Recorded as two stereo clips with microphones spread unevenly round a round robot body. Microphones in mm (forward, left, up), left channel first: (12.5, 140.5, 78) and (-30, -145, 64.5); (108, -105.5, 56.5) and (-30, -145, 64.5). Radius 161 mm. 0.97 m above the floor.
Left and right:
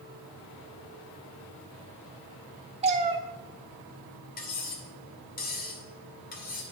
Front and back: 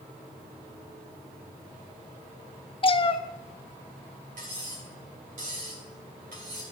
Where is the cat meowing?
30° right, 0.7 m.